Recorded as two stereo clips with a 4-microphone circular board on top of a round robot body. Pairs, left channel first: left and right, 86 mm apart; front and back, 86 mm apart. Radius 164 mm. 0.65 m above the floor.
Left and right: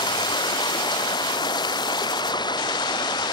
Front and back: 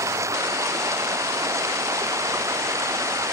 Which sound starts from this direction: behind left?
Running water, at 0.0 s.